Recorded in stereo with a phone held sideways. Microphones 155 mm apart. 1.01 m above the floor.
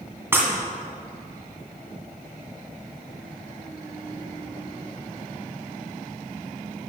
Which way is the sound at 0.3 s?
15° right (ahead or behind).